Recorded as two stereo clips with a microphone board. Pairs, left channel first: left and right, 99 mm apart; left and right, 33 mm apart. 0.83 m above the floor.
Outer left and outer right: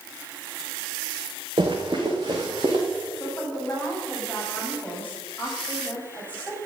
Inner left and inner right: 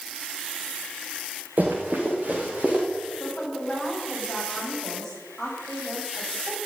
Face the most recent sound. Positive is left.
turn(degrees=15)  # may be behind; listen again after turning